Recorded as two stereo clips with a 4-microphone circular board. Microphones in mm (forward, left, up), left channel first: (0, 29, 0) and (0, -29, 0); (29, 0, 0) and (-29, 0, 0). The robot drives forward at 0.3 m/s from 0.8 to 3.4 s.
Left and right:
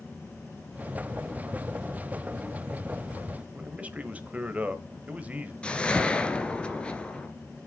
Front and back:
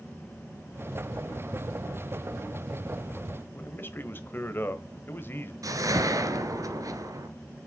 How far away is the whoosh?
About 1.4 m.